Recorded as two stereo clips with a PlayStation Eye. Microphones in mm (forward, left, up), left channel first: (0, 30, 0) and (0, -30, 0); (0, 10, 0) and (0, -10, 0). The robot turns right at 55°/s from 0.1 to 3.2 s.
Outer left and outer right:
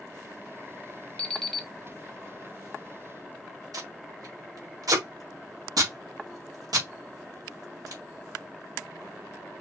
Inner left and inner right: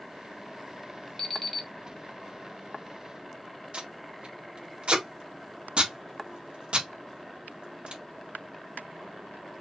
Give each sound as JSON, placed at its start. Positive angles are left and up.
{"t": 1.2, "sound": "an alarm clock", "side_deg": 20, "distance_m": 1.0}
{"t": 3.7, "sound": "tape being pulled", "side_deg": -75, "distance_m": 1.9}